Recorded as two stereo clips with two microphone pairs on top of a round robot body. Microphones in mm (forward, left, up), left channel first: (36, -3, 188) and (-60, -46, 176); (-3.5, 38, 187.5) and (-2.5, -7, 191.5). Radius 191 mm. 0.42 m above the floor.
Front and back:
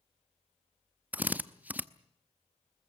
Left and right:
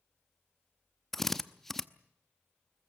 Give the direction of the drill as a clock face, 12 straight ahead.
7 o'clock.